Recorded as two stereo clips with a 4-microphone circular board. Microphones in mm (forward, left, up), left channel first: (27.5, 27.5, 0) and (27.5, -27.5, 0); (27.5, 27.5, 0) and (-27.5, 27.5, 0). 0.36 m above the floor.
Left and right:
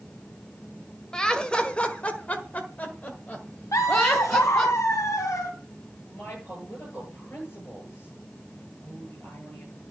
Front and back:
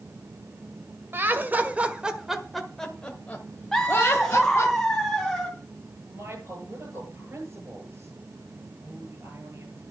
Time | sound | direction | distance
1.1 | laughter | 160° left | 1.6 m
3.7 | laughter | 85° left | 2.5 m
6.1 | a woman speaking | 140° left | 8.5 m